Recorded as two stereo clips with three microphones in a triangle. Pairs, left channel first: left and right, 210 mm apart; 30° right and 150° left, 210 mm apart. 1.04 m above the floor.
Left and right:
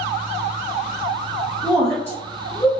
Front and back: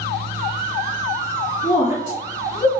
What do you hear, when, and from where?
1.6 s a woman speaking: 10° right, 0.8 m; by 2.7 s 30° left, 1.1 m